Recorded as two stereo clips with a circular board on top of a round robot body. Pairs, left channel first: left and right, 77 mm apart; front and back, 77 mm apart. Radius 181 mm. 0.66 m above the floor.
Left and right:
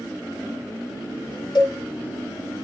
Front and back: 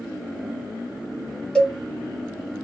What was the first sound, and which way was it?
A cowbell, 80° left.